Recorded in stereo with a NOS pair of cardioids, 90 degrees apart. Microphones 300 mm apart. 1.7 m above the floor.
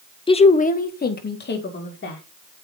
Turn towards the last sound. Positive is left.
turn(degrees=35)